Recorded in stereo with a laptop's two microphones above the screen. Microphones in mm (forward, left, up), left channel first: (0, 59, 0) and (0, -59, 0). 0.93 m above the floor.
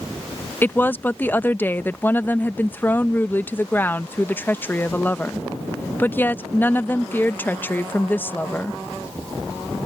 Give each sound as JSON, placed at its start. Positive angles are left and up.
{"t": 0.6, "sound": "a woman speaking", "side_deg": 15}